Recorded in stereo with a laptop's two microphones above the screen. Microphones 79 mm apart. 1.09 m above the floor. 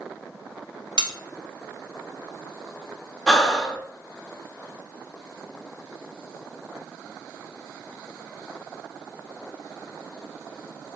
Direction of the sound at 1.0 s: 65° right (ahead or behind).